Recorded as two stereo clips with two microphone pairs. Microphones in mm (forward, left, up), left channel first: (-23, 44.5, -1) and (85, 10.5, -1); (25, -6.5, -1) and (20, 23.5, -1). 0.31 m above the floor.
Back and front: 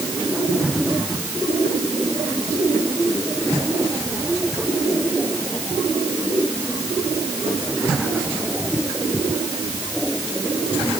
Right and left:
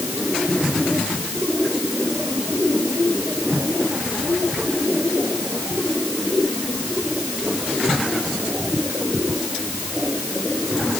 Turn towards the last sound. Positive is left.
No sound to turn to.